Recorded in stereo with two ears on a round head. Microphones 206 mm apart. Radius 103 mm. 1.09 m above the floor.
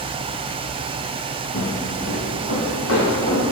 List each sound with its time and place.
1.5 s footsteps: 60° left (ahead or behind), 2.5 m; by 3.4 s 65° left (ahead or behind), 4.5 m